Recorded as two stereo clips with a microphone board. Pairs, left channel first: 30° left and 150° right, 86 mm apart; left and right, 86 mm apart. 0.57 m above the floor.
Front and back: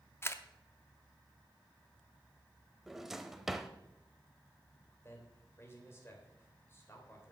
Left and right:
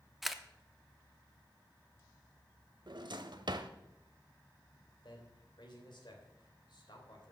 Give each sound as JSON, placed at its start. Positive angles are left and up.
{"t": 0.2, "sound": "a camera shutter", "azimuth_deg": -5, "distance_m": 0.6}
{"t": 2.9, "sound": "a drawer", "azimuth_deg": -65, "distance_m": 0.7}
{"t": 5.0, "sound": "a man speaking", "azimuth_deg": 85, "distance_m": 2.5}